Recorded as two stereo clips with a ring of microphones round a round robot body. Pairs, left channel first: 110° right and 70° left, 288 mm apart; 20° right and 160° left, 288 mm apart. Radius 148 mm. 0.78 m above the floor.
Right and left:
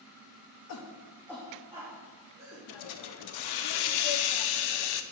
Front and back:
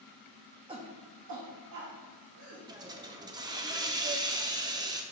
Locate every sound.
0.7 s a shout: 130° right, 1.1 m; by 2.6 s 125° left, 2.5 m
2.7 s a hiss: 125° right, 0.5 m